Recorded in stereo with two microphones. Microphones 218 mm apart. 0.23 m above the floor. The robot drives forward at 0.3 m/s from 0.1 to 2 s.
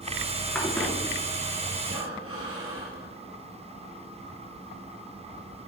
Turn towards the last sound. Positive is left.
turn(degrees=-75)  # may be behind; listen again after turning